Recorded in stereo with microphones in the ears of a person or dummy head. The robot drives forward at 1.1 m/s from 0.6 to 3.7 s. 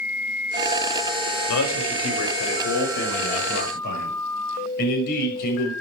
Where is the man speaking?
75° left (ahead or behind), 5 m; by 5.7 s 50° left (ahead or behind), 6 m.